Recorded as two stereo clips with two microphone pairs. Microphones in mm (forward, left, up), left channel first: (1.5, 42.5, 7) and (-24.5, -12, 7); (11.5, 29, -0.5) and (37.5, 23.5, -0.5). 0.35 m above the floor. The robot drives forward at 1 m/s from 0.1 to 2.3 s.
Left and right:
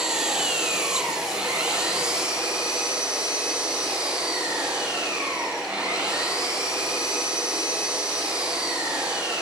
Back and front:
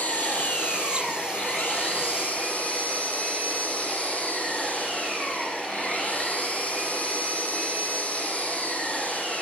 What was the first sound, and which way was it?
An engine running, 165° left.